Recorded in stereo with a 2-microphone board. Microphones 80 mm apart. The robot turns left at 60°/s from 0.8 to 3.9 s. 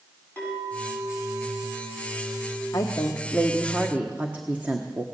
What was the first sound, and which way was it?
A clink, 155° left.